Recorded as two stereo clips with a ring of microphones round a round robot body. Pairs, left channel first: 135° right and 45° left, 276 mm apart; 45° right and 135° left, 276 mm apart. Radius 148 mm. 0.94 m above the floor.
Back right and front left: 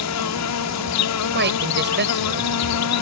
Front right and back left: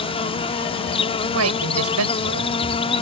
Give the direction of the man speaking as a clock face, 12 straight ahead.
9 o'clock.